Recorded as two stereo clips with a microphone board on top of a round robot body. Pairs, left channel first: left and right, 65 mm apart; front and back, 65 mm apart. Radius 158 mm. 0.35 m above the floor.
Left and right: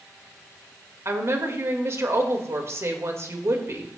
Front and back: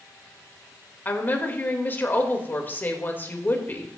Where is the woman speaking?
55° right, 2.0 m.